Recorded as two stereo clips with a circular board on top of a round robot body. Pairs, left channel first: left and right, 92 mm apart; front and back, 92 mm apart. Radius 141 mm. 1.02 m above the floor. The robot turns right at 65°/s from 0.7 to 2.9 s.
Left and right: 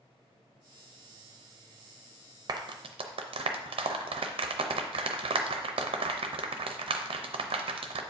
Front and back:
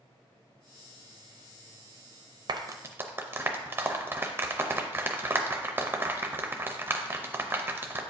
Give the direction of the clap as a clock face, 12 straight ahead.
5 o'clock.